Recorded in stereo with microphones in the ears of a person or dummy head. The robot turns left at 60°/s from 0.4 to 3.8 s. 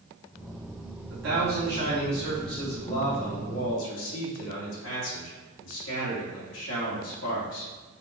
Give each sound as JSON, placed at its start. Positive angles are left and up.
{"t": 1.1, "sound": "a man speaking", "azimuth_deg": -100, "distance_m": 1.7}